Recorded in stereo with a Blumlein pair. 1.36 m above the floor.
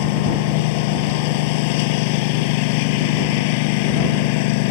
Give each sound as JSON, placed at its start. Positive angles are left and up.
{"t": 0.0, "sound": "a lawn mower", "azimuth_deg": 45}